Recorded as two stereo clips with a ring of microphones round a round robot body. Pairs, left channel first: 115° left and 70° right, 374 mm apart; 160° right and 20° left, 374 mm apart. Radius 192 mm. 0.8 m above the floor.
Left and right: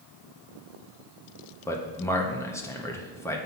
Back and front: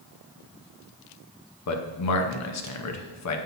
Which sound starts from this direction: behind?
A man speaking, at 1.7 s.